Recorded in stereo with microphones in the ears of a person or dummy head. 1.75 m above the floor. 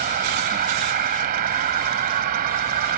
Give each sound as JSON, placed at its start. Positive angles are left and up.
{"t": 0.0, "sound": "an insect", "side_deg": -50}